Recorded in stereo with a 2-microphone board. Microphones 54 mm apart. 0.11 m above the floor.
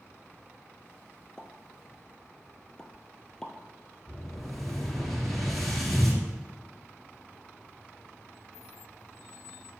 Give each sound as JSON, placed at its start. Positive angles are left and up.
{"t": 1.4, "sound": "a pop", "side_deg": 15, "distance_m": 1.1}
{"t": 4.1, "sound": "an explosion", "side_deg": 5, "distance_m": 2.5}